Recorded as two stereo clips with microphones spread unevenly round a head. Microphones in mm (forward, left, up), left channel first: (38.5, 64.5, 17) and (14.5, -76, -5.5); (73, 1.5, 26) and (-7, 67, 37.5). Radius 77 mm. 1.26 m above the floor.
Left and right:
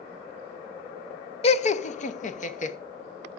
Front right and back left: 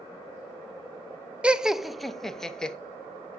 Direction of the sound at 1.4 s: 60° left.